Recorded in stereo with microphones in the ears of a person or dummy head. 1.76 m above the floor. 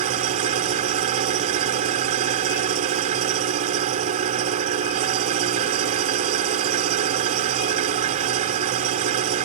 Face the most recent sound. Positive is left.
turn(degrees=-45)  # may be behind; listen again after turning